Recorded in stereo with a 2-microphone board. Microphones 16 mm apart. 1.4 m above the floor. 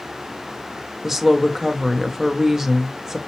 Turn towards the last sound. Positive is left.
turn(degrees=-35)  # may be behind; listen again after turning